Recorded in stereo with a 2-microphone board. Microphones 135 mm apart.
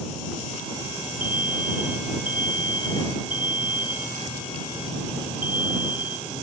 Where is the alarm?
85° right.